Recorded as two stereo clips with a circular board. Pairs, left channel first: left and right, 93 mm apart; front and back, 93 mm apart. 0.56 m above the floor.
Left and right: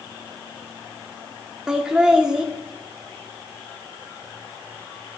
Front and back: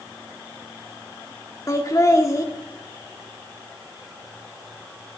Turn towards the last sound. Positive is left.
turn(degrees=-10)